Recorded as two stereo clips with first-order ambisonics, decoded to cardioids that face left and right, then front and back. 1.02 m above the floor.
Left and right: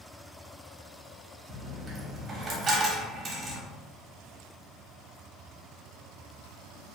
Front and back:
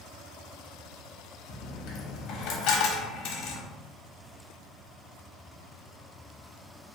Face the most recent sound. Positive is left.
turn(degrees=-25)